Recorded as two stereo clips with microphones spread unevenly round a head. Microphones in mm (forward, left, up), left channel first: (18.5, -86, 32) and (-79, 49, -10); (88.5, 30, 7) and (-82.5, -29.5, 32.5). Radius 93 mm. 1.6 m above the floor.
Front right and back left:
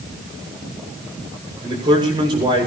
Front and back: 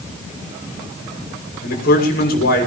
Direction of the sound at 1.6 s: 60° left.